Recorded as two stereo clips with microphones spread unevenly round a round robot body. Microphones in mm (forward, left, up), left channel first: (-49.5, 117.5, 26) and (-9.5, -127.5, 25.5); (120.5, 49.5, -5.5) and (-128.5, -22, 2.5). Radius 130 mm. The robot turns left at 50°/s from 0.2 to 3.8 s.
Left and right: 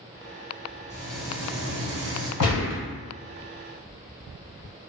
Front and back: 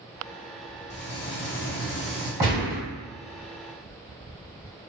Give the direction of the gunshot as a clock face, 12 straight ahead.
8 o'clock.